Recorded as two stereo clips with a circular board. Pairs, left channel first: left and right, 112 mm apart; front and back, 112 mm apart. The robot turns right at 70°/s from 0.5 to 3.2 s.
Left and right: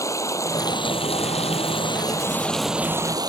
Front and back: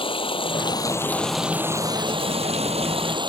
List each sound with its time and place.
0.0 s running water: 30° left; by 3.3 s 140° right